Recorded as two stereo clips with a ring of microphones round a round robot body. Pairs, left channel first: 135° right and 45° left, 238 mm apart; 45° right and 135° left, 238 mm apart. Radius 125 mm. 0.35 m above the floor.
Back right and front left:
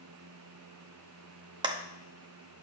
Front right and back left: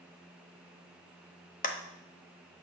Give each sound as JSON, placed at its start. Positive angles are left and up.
{"t": 1.6, "sound": "a clap", "azimuth_deg": -15, "distance_m": 0.7}